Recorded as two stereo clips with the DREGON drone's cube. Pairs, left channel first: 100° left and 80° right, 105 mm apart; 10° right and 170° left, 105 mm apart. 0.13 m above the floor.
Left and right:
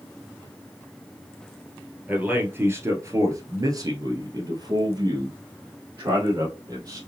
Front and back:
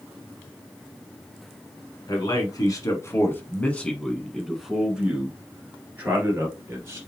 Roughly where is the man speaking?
Ahead.